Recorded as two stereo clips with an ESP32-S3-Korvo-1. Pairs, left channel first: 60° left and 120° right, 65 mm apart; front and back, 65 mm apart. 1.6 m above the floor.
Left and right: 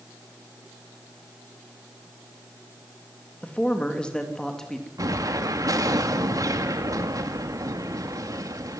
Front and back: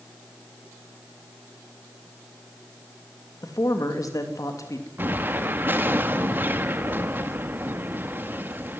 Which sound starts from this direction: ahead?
A man speaking, at 3.4 s.